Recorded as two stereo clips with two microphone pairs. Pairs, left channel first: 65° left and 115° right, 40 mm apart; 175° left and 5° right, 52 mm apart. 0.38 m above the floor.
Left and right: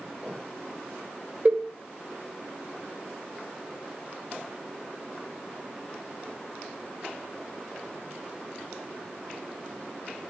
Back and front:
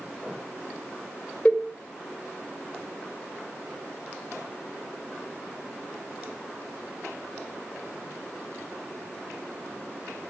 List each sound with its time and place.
1.4 s a cowbell: 135° right, 1.6 m